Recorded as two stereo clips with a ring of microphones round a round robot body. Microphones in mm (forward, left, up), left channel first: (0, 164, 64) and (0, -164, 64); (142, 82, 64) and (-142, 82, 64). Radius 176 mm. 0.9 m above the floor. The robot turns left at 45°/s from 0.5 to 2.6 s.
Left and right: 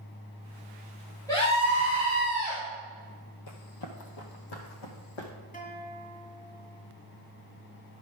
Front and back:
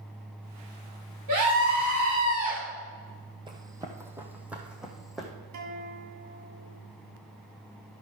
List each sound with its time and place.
1.3 s a scream: 170° left, 3.5 m; by 2.6 s 110° left, 3.5 m
3.5 s running footsteps: 110° left, 1.3 m; by 5.3 s 90° left, 2 m
5.5 s a guitar: 155° left, 2 m